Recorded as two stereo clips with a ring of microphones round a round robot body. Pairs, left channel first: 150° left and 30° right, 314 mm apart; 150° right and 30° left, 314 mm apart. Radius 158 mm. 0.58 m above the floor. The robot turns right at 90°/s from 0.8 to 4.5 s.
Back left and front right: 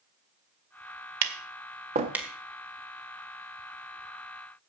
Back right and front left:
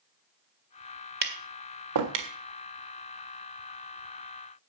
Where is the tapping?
30° right, 1.6 m; by 2.3 s 65° left, 1.6 m.